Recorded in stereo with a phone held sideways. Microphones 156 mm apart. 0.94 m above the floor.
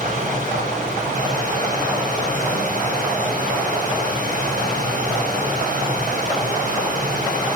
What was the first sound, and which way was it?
Running water, 50° right (ahead or behind).